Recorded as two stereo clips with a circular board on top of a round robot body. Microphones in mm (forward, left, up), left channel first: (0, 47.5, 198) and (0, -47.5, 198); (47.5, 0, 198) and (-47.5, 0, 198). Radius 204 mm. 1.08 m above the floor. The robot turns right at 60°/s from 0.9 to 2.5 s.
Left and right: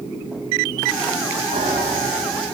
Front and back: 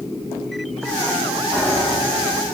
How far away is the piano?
About 8 m.